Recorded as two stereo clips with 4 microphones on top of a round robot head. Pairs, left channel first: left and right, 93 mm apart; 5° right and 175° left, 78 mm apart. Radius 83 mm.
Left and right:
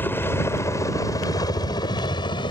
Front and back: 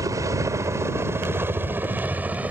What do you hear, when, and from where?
0.0 s a helicopter: 150° left; by 2.5 s 105° left